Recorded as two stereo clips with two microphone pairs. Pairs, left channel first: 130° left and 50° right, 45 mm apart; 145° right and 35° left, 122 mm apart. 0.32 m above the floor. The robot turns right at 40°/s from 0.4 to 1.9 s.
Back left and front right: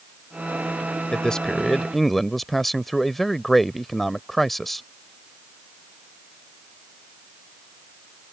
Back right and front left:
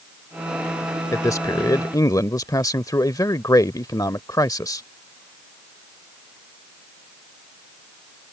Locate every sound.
1.1 s a man speaking: 175° right; by 4.8 s 145° right